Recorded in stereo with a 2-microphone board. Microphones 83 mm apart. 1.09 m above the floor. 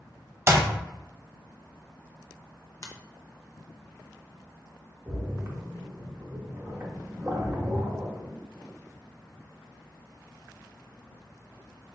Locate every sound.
0.5 s a clap: 35° right (ahead or behind), 0.8 m
2.8 s a finger snap: 45° left (ahead or behind), 0.7 m
5.1 s a splash: 35° right (ahead or behind), 0.9 m